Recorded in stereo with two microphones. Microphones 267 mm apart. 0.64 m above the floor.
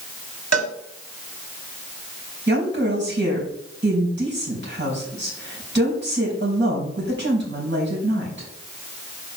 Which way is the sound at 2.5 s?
40° right (ahead or behind).